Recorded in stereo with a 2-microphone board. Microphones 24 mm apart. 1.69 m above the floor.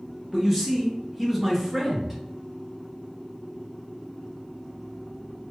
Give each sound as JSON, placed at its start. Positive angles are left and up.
{"t": 0.3, "sound": "a man speaking", "side_deg": 0, "distance_m": 0.7}